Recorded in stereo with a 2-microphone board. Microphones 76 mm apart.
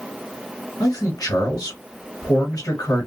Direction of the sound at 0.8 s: 45° left (ahead or behind).